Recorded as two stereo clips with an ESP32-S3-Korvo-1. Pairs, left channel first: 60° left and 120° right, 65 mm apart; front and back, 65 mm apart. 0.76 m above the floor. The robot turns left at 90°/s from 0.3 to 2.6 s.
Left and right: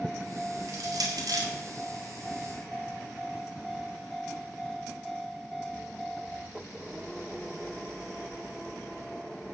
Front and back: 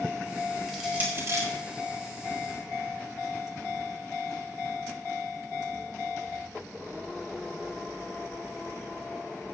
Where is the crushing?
85° right, 4.5 m; by 1.5 s 155° right, 4.5 m.